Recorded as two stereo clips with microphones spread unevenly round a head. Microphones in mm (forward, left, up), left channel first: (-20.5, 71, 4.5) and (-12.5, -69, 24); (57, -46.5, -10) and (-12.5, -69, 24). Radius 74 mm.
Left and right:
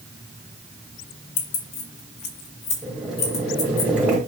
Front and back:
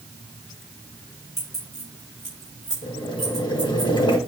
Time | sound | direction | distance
1.4 | keys jangling | 105° left | 1.3 m
2.8 | boiling | 10° right | 1.7 m